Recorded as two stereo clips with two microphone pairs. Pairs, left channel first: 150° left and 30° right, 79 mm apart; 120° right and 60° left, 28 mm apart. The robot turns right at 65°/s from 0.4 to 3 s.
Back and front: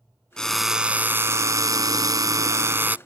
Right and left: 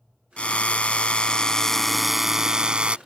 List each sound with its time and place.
0.4 s a drill: 135° right; by 3.0 s 35° left